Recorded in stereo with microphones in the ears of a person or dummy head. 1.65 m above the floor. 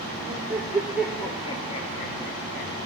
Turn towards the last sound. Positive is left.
turn(degrees=55)  # may be behind; listen again after turning